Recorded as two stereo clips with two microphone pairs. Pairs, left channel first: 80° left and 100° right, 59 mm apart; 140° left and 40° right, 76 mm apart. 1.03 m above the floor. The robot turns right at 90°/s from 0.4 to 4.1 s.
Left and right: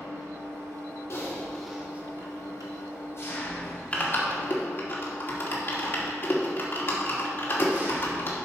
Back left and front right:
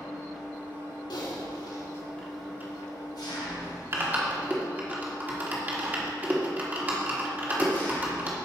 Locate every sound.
0.0 s an engine running: 130° right, 2 m; by 8.5 s 155° right, 2 m
1.1 s typing on a keyboard: 120° left, 1.5 m; by 8.3 s 30° left, 1.5 m